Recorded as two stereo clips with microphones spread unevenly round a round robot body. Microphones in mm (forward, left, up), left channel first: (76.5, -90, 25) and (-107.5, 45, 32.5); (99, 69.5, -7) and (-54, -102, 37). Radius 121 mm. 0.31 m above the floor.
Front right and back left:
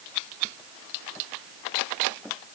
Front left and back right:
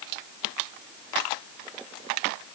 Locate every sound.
Only background noise.